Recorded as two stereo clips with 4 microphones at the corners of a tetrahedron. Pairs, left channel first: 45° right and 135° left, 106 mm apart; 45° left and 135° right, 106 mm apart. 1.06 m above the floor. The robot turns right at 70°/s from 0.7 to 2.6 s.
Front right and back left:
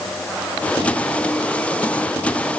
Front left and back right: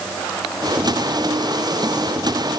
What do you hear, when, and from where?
Only background noise.